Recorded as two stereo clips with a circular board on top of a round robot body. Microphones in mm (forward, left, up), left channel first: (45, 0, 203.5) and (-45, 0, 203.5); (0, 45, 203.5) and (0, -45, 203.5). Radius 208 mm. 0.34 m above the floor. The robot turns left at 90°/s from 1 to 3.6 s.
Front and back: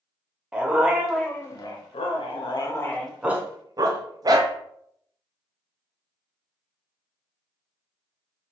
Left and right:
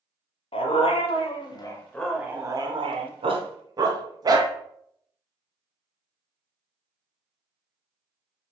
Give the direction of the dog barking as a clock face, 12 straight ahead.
9 o'clock.